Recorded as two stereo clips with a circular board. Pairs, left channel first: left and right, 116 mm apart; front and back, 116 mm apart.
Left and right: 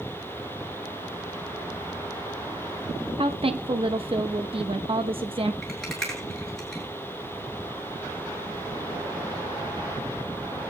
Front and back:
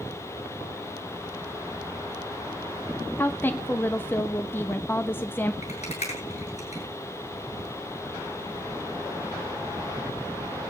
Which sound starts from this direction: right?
A woman speaking, at 3.2 s.